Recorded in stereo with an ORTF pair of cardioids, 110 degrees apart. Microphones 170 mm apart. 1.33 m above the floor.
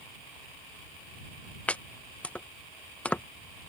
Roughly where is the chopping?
Ahead.